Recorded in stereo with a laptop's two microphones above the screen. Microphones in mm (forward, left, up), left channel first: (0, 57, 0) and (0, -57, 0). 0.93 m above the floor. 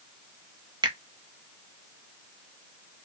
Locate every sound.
0.8 s a finger snap: 40° right (ahead or behind), 0.7 m